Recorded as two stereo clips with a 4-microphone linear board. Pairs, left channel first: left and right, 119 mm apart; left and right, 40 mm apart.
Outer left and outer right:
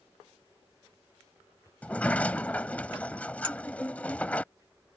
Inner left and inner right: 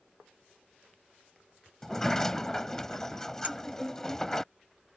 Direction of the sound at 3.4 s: 45° right (ahead or behind).